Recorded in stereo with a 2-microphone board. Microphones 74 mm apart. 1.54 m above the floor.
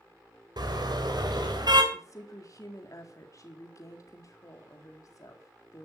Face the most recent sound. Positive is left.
turn(degrees=50)  # may be behind; listen again after turning